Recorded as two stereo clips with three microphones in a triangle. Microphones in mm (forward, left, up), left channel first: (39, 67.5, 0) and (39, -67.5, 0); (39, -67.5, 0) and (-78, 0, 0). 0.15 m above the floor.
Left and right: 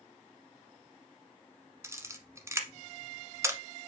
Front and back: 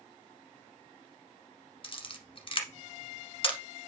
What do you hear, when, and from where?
1.8 s a camera shutter: 30° right, 1.1 m